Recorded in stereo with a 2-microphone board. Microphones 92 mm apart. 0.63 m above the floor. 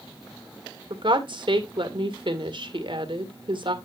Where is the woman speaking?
60° right (ahead or behind), 2.0 m.